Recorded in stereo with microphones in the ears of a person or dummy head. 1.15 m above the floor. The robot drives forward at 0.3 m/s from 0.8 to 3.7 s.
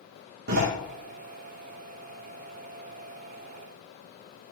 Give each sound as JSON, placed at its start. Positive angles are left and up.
{"t": 0.5, "sound": "a door slam", "side_deg": -65, "distance_m": 1.8}